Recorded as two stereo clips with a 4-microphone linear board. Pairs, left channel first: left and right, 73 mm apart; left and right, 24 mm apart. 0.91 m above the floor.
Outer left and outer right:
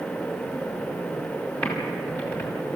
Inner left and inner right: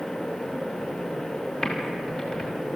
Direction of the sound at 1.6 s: 30° left (ahead or behind).